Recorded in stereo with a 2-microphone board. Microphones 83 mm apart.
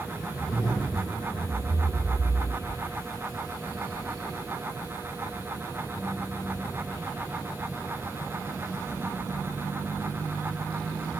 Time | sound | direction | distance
0.3 | a zipper | 40° left (ahead or behind) | 4.5 m